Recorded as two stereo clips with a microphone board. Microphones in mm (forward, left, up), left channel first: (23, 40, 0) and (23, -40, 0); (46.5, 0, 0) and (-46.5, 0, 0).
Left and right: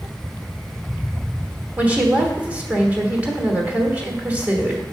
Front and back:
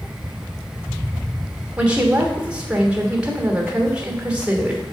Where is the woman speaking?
120° right, 1.3 m.